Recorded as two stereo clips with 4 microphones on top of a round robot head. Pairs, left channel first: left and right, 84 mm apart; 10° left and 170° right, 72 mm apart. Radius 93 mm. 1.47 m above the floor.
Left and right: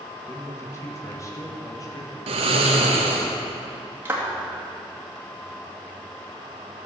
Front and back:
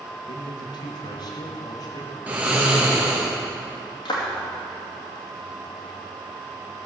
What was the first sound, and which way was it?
A man speaking, 30° left.